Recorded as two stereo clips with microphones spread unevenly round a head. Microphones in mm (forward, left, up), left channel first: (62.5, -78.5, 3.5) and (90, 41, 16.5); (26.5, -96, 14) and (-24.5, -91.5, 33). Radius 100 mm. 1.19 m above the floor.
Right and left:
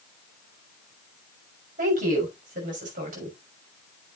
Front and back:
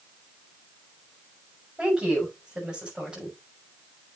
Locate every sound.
1.8 s a woman speaking: 90° left, 6 m